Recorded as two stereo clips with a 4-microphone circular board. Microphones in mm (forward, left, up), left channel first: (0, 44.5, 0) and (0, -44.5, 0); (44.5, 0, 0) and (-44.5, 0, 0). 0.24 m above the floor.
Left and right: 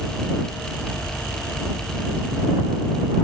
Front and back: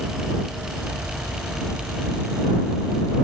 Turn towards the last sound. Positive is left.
No sound to turn to.